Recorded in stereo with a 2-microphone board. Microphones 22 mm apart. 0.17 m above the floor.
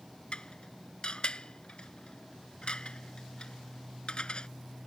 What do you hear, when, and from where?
0.3 s dishes clattering: 55° left (ahead or behind)